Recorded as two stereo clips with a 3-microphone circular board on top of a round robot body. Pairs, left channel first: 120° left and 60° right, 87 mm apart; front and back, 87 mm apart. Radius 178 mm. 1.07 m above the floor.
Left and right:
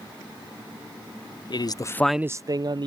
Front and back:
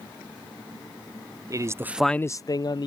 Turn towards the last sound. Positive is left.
turn(degrees=-35)